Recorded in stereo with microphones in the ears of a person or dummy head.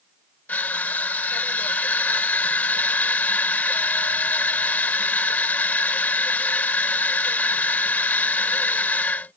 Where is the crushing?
10° left (ahead or behind).